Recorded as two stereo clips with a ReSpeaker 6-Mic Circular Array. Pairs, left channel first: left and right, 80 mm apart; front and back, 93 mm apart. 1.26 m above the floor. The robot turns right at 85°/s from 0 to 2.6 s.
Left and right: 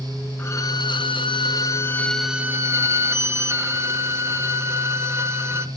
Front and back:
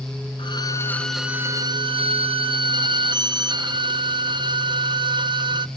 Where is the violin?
25° left, 0.7 m; by 5.7 s 145° right, 0.7 m.